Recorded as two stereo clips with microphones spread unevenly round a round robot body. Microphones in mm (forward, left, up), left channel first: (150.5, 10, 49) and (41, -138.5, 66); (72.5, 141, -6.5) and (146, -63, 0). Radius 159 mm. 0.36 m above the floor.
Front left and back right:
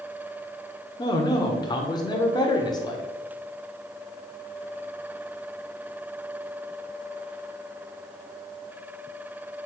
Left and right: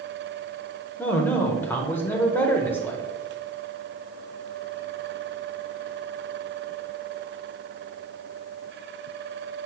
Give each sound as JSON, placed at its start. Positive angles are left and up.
{"t": 1.0, "sound": "a man speaking", "azimuth_deg": 45, "distance_m": 0.9}